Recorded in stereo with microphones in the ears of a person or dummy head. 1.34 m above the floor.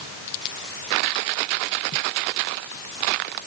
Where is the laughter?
No laughter in this recording.